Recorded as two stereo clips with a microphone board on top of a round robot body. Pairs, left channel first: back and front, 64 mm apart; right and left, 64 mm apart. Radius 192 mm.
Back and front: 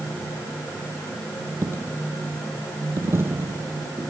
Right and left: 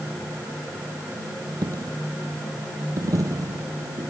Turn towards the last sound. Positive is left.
turn(degrees=60)